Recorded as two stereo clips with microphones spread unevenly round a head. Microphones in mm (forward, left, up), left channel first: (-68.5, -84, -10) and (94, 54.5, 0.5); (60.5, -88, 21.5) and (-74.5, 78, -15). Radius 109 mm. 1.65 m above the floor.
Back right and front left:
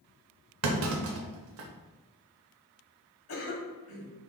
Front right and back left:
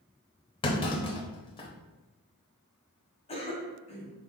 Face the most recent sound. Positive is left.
turn(degrees=-115)